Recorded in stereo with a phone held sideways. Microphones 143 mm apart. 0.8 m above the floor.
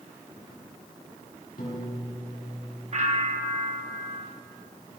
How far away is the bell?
About 1.3 m.